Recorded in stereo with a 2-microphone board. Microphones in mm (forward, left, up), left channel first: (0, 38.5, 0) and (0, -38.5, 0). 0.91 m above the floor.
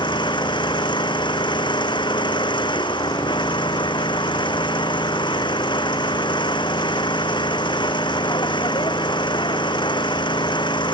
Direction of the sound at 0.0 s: 85° left.